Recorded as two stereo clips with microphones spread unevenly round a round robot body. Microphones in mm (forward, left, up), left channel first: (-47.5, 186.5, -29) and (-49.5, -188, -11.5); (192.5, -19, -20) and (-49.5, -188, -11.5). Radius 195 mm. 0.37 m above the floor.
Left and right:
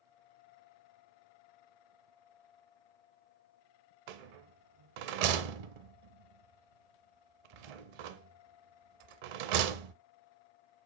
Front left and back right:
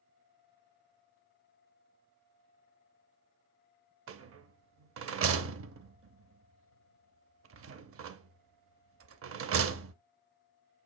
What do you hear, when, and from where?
4.1 s a rattle: 95° right, 0.6 m